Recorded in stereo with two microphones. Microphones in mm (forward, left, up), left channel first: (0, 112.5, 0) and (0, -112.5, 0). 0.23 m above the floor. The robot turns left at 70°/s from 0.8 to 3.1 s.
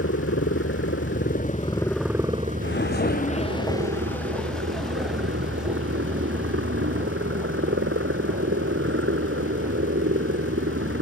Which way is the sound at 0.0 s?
85° left.